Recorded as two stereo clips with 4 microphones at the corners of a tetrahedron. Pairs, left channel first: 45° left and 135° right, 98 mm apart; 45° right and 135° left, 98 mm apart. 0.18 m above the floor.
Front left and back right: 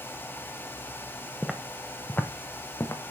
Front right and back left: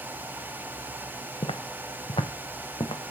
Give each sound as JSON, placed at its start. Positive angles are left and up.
{"t": 1.4, "sound": "footsteps", "azimuth_deg": -45, "distance_m": 1.2}